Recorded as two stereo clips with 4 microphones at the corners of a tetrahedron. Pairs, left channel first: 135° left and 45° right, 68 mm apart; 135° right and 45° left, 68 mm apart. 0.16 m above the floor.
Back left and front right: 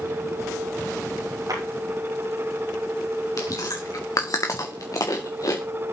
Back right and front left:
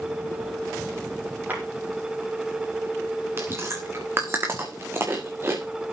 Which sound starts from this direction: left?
Chewing, at 3.4 s.